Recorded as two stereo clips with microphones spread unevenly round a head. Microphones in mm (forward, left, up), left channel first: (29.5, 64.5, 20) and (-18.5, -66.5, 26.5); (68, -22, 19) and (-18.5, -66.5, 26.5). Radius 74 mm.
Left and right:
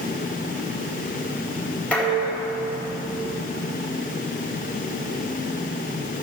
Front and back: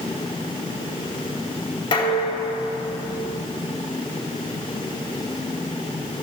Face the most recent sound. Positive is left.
turn(degrees=-10)